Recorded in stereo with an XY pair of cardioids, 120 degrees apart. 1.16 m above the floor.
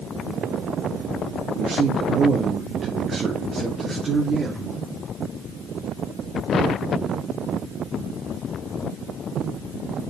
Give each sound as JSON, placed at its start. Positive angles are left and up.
{"t": 1.6, "sound": "a man speaking", "azimuth_deg": -65, "distance_m": 2.0}